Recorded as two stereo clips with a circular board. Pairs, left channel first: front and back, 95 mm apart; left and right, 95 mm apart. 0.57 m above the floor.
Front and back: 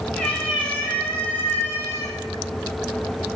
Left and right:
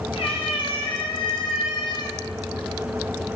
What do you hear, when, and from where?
0.1 s a cat meowing: 80° left, 2 m; by 2.2 s 55° left, 1.0 m